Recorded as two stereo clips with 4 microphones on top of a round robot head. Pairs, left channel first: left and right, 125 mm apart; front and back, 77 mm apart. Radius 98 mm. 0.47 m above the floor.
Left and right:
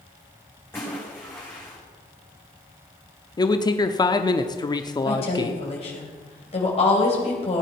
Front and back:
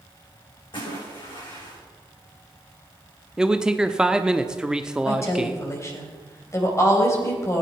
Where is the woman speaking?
50° left, 3.5 m.